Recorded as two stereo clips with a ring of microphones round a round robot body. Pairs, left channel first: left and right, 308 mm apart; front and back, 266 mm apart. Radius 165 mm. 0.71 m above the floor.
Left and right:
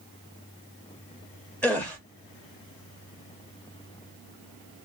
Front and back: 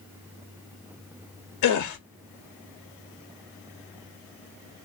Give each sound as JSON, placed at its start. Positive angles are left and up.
{"t": 1.6, "sound": "a gasp", "azimuth_deg": 5, "distance_m": 0.6}